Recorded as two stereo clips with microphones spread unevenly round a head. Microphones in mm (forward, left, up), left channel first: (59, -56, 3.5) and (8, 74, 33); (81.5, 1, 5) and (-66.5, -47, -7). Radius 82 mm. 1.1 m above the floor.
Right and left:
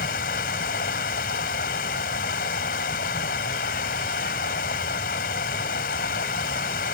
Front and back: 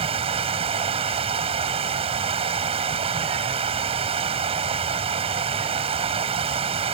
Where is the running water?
110° right.